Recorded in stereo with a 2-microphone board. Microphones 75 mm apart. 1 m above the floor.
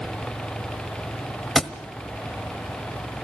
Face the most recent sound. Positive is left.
turn(degrees=0)  # may be behind; listen again after turning